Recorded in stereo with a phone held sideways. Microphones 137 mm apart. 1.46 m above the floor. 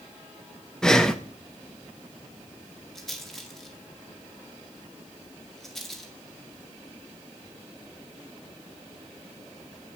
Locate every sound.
0.8 s breathing: 5° left (ahead or behind), 0.8 m
3.0 s a rattle: centre (ahead or behind), 2 m